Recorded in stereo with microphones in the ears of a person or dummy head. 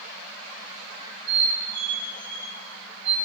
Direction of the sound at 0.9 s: 60° right (ahead or behind).